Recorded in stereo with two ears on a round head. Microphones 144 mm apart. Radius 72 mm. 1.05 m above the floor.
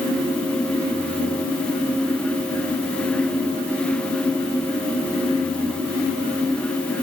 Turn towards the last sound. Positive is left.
No sound to turn to.